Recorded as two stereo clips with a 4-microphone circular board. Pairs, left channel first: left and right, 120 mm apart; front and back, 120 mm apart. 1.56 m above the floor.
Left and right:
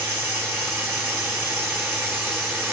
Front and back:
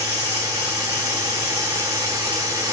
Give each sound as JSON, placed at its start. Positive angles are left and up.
{"t": 0.0, "sound": "running water", "azimuth_deg": -40, "distance_m": 1.5}